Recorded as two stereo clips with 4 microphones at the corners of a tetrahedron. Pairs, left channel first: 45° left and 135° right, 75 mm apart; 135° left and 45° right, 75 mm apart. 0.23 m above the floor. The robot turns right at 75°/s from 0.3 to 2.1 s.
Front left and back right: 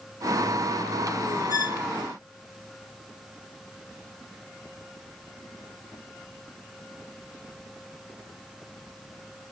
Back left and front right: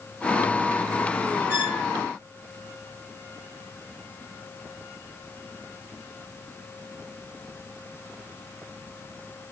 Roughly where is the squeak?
Ahead.